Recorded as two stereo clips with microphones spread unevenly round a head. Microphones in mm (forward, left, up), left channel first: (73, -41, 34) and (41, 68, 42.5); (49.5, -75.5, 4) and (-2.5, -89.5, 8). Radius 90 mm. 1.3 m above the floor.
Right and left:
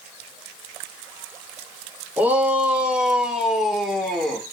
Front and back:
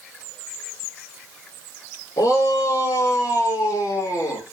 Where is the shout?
30° left, 3.5 m; by 4.4 s 15° left, 3.5 m.